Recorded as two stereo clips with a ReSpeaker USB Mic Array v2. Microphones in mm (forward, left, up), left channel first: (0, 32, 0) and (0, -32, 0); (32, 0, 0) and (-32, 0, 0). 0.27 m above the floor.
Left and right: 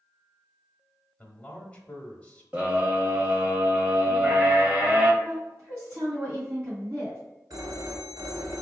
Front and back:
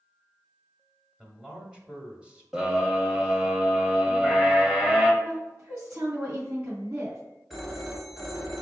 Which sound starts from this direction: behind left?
A man speaking, at 1.2 s.